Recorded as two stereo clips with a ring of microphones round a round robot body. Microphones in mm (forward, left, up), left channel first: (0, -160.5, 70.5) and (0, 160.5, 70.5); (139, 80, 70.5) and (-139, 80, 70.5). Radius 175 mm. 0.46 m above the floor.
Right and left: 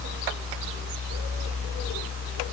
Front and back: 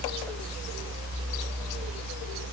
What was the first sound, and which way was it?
Only background noise.